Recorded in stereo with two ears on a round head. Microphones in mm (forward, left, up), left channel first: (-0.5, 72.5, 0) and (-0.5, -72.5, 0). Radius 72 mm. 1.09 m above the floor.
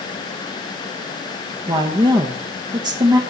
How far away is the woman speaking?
About 1.2 m.